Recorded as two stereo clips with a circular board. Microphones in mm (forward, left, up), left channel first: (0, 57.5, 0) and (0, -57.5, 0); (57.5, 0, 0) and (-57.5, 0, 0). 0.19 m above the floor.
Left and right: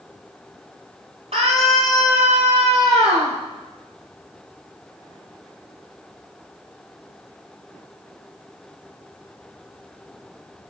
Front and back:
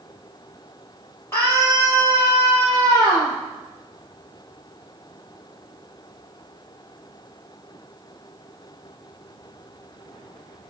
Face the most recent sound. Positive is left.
turn(degrees=-70)